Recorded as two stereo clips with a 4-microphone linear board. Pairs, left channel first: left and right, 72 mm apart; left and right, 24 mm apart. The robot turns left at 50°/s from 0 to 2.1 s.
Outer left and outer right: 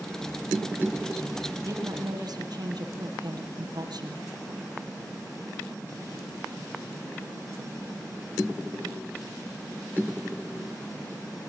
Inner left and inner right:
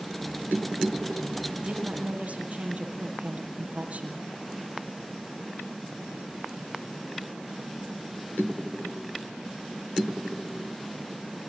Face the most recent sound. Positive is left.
turn(degrees=-70)  # may be behind; listen again after turning